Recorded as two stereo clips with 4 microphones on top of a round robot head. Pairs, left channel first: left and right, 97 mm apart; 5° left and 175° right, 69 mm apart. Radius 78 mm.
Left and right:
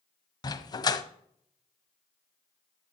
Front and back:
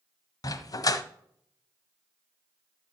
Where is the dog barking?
40° left, 1.0 m.